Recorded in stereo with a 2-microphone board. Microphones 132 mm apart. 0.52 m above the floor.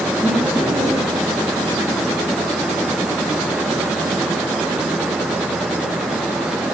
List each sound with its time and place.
0.2 s laughter: 20° right (ahead or behind), 9.5 m